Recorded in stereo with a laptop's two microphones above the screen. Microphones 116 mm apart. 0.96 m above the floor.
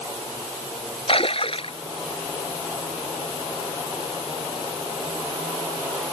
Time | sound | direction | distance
1.1 | a splash | 55° left (ahead or behind) | ?